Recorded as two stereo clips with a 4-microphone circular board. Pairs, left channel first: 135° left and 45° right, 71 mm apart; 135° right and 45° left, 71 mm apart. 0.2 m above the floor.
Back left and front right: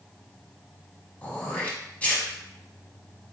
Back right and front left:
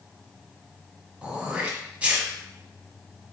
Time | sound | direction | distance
1.2 | throat clearing | 95° left | 1.1 m